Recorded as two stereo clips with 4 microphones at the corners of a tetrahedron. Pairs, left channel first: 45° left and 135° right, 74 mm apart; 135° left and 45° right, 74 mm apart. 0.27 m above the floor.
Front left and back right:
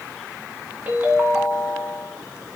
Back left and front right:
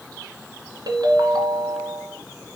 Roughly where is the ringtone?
Ahead right.